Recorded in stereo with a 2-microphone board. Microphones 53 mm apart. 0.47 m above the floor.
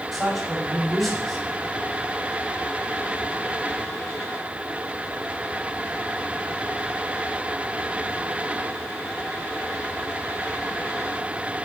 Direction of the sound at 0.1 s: Centre (ahead or behind).